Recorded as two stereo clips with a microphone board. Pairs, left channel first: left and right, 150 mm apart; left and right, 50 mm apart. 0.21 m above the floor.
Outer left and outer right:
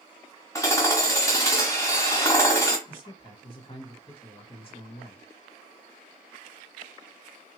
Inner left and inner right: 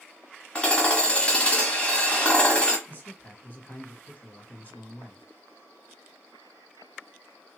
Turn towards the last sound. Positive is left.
turn(degrees=40)  # may be behind; listen again after turning